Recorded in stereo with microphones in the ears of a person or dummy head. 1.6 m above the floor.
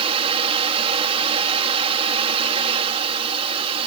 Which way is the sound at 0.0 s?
30° right (ahead or behind).